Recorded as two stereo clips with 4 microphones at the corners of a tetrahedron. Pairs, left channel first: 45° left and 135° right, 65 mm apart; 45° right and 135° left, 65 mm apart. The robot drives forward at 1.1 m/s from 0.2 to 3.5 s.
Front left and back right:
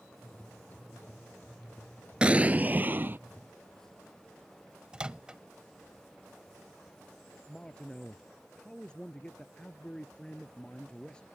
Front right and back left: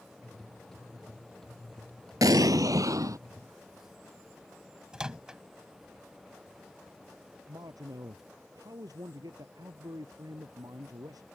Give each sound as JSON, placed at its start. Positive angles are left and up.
{"t": 2.2, "sound": "an explosion", "azimuth_deg": 150}
{"t": 4.9, "sound": "a microwave", "azimuth_deg": -175}
{"t": 7.5, "sound": "a man speaking", "azimuth_deg": 120}